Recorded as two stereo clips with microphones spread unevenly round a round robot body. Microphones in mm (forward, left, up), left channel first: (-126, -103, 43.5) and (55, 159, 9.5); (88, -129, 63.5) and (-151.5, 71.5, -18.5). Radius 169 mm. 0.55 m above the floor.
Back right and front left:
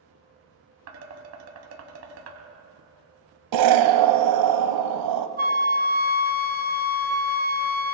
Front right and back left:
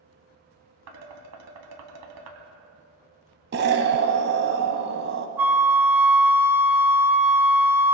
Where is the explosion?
75° left, 1.0 m.